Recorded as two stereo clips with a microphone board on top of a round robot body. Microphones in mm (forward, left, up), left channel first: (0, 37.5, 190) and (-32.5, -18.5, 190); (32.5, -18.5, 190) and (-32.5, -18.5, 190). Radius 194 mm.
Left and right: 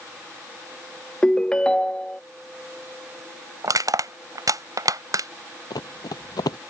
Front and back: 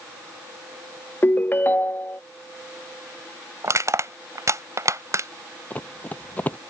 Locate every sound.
1.2 s a ringtone: 5° right
3.6 s crushing: 145° right
5.7 s running footsteps: 65° left